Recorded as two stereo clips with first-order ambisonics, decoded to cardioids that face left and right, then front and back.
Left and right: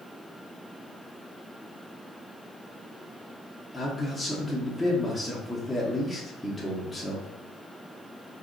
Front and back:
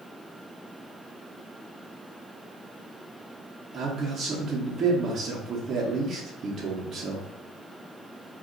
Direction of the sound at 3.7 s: 175° left.